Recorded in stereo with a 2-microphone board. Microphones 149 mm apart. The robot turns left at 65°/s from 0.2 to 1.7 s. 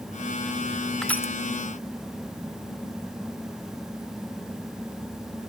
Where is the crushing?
5° left (ahead or behind), 0.5 m; by 1.3 s 25° left (ahead or behind), 0.5 m.